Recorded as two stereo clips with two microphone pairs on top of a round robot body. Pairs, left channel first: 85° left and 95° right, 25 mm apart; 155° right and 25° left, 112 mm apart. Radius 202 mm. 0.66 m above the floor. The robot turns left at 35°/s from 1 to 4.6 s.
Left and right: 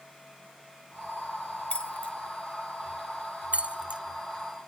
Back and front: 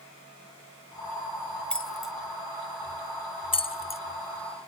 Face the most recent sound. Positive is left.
turn(degrees=-160)